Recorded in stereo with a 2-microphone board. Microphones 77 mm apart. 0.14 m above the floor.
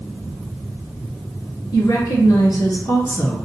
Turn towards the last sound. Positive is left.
turn(degrees=40)  # may be behind; listen again after turning